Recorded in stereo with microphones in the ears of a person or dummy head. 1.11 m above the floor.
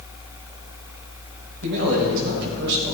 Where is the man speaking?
65° right (ahead or behind), 4.5 m.